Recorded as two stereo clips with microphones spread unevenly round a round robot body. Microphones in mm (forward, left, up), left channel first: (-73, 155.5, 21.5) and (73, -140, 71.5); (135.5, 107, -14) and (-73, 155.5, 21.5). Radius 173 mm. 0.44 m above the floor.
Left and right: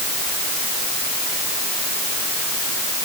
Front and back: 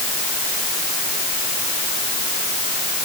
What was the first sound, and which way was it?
Only background noise.